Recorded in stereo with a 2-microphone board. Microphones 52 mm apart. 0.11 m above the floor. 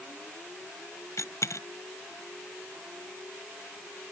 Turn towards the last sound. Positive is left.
turn(degrees=75)  # may be behind; listen again after turning